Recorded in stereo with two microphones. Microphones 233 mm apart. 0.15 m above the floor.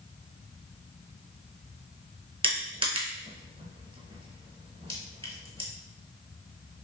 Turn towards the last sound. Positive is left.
turn(degrees=-25)  # may be behind; listen again after turning